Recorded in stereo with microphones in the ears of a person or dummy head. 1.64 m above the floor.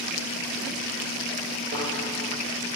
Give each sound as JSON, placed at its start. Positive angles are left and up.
{"t": 1.7, "sound": "a thud", "side_deg": -50, "distance_m": 9.5}